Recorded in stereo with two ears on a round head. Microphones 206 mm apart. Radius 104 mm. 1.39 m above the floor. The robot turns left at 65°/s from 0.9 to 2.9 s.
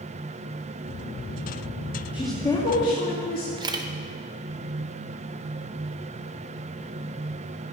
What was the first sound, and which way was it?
A woman speaking, 170° right.